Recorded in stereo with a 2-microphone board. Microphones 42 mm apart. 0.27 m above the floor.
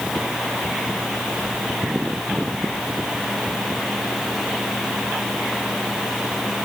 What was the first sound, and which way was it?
Only background noise.